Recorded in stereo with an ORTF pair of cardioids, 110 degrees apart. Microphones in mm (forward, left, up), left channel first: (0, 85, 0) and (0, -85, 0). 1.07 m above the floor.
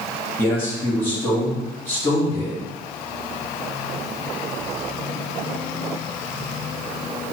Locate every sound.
0.4 s a man speaking: 15° left, 1.5 m